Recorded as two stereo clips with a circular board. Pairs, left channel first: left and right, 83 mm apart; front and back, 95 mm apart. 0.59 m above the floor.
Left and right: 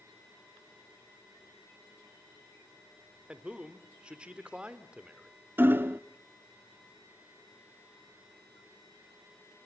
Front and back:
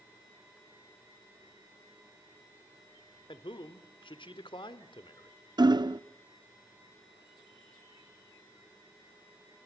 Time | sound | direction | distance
3.3 | a man speaking | 15° right | 1.6 m
5.6 | hammering | 150° right | 0.6 m